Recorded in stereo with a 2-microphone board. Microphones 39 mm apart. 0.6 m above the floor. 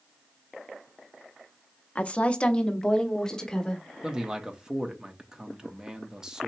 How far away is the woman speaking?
About 0.6 m.